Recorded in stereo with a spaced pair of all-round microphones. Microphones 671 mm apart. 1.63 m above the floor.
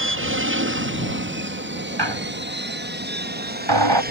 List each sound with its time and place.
0.0 s an aircraft: 20° right (ahead or behind); by 4.1 s 15° right (ahead or behind)
2.0 s a squeak: 40° right (ahead or behind)